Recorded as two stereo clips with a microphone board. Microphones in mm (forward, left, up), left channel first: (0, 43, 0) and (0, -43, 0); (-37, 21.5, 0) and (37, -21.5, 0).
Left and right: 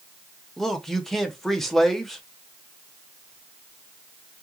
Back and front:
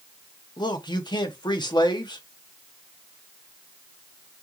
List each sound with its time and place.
0.6 s a man speaking: 175° left, 0.8 m